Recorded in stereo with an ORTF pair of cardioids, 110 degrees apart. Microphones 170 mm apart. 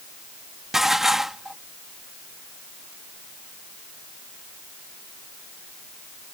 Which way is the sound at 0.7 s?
Straight ahead.